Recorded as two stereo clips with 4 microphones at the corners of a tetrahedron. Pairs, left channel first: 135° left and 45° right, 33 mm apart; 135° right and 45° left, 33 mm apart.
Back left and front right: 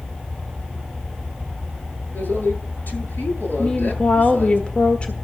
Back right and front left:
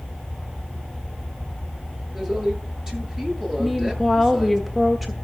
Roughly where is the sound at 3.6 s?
Behind left.